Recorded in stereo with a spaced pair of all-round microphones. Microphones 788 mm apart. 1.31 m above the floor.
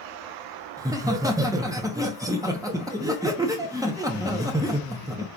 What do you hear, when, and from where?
0.8 s laughter: 5° right (ahead or behind), 0.7 m